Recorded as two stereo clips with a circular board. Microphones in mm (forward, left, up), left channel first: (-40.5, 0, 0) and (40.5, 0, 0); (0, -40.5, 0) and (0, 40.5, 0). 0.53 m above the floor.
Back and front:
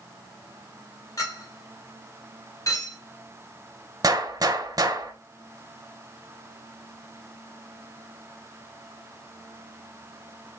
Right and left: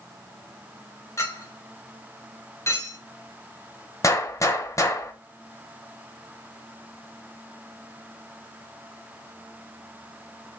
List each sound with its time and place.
1.2 s a clink: 140° right, 1.5 m
4.0 s a gunshot: 40° right, 0.7 m